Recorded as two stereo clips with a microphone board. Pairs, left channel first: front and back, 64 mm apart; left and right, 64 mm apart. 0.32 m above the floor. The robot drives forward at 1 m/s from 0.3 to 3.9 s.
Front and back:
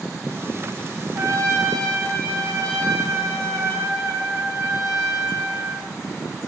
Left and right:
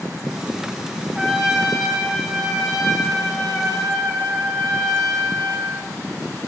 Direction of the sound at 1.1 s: 170° right.